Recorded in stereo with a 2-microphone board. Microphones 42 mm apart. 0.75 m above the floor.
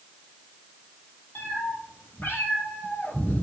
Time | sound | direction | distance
1.4 | a cat meowing | 65° left (ahead or behind) | 3 m